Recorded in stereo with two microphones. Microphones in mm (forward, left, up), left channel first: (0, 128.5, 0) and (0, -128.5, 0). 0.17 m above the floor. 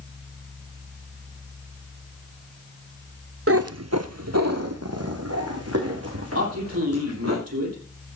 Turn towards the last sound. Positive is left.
turn(degrees=-70)  # may be behind; listen again after turning